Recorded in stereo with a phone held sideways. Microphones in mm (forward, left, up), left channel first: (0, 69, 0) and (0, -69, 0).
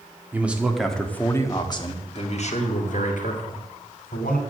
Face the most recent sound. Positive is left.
turn(degrees=80)